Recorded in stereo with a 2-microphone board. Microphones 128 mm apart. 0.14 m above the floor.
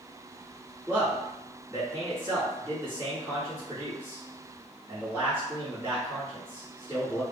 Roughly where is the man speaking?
Centre.